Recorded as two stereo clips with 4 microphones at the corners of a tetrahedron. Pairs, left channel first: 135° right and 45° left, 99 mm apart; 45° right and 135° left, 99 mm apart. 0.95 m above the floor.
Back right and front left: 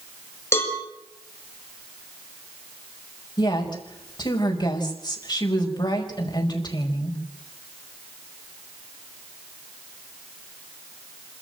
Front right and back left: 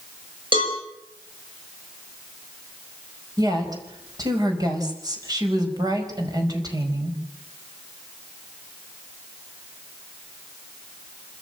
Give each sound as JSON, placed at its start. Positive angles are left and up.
{"t": 0.5, "sound": "a cowbell", "azimuth_deg": 165, "distance_m": 6.0}
{"t": 3.4, "sound": "a woman speaking", "azimuth_deg": -175, "distance_m": 5.0}